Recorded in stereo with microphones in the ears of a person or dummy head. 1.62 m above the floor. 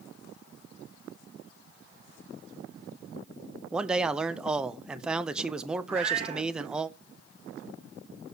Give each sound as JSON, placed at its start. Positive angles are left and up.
{"t": 3.7, "sound": "a man speaking", "side_deg": 0, "distance_m": 0.5}
{"t": 5.9, "sound": "a cat meowing", "side_deg": -45, "distance_m": 3.0}